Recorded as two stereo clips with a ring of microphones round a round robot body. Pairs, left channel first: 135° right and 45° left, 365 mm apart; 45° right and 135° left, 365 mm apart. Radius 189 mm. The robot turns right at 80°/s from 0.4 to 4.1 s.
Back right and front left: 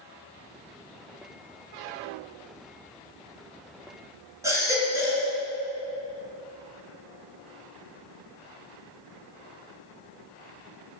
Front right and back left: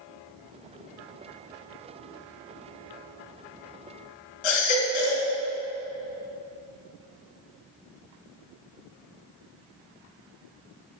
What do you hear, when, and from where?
4.4 s a baby crying: 35° right, 3.5 m